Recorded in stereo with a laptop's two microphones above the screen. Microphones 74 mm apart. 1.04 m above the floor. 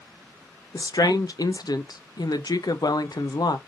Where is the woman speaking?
65° left (ahead or behind), 0.6 m.